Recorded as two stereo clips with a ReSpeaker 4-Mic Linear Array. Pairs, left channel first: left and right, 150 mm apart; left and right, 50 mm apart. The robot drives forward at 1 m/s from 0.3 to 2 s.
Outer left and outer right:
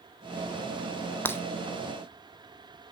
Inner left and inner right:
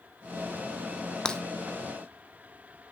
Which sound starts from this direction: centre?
Breaking glass, at 1.2 s.